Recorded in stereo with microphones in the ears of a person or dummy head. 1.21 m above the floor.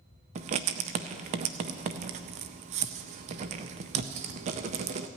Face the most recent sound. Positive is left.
turn(degrees=-40)  # may be behind; listen again after turning